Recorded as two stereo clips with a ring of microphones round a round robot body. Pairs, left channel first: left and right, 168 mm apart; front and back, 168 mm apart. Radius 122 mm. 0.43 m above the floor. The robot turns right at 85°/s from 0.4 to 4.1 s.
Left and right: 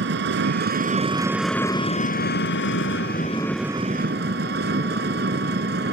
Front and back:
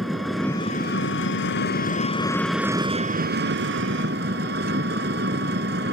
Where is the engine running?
90° right; by 5.9 s 135° right.